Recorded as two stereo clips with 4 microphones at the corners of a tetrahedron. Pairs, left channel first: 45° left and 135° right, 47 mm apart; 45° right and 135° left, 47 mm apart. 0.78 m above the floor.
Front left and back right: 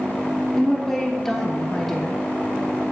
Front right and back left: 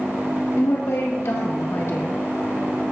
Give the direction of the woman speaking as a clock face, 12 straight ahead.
1 o'clock.